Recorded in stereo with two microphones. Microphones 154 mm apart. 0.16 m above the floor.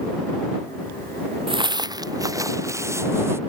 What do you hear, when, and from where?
1.5 s footsteps: 35° right (ahead or behind); by 3.4 s 15° right (ahead or behind)